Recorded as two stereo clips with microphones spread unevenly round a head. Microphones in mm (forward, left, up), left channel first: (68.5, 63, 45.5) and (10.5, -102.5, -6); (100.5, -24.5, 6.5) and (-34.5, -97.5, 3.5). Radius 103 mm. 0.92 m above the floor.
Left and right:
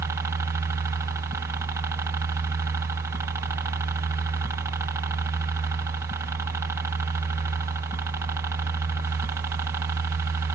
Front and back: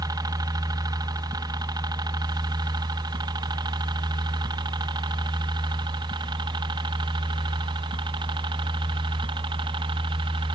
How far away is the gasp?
No gasp in this recording.